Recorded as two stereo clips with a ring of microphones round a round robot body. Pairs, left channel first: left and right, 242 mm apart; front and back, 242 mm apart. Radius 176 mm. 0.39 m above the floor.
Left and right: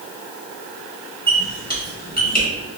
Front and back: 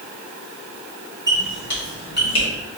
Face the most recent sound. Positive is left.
turn(degrees=40)